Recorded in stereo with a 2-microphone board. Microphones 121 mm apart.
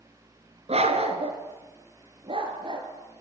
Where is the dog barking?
60° right (ahead or behind), 2.5 m; by 2.9 s 45° right (ahead or behind), 3.5 m.